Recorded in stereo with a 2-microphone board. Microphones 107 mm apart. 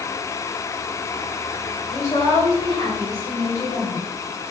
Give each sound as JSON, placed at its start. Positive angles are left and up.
{"t": 1.9, "sound": "a woman speaking", "side_deg": 35, "distance_m": 2.5}